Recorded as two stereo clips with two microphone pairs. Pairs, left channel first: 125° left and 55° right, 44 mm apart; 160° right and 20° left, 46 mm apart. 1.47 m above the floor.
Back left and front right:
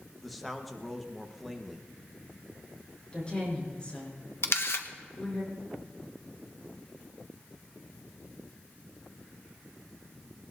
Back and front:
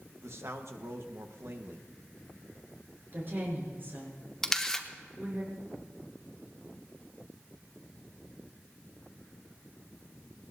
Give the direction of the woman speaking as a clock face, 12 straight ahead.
10 o'clock.